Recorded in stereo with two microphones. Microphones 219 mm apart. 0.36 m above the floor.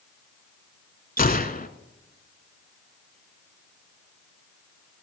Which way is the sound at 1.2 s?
40° left (ahead or behind).